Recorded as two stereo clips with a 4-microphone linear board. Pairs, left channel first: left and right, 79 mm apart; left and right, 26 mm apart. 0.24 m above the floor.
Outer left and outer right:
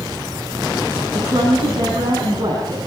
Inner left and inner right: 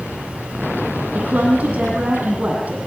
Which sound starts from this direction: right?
A woman speaking, at 1.1 s.